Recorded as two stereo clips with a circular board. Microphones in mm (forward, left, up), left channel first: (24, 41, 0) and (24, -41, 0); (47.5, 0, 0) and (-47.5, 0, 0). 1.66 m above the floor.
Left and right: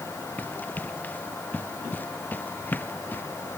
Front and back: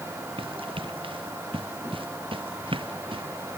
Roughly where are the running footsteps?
Behind.